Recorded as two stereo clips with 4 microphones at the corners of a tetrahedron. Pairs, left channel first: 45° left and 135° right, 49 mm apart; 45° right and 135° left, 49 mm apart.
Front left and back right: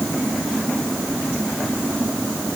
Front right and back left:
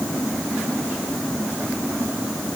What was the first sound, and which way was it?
Only background noise.